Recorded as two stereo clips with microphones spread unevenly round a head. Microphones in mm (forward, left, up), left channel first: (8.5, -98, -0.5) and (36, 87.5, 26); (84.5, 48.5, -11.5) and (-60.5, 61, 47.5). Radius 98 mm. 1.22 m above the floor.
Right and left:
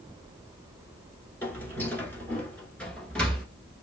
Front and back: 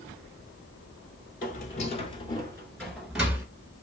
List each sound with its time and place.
1.4 s footsteps: 15° right, 1.3 m; by 3.5 s 165° left, 1.4 m